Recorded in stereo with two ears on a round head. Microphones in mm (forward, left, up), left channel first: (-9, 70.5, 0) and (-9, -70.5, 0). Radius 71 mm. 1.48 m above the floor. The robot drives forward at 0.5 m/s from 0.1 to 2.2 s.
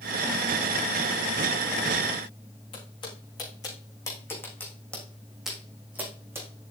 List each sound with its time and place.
2.7 s footsteps: 35° left (ahead or behind), 5 m; by 6.5 s 15° right (ahead or behind), 4 m